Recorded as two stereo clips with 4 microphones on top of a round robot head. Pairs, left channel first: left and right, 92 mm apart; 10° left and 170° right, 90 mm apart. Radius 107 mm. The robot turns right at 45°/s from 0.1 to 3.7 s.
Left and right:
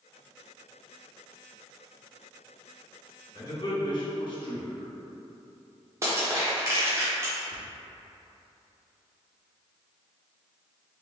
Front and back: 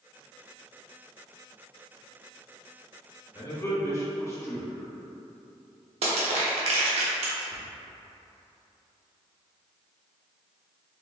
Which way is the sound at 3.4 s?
45° left.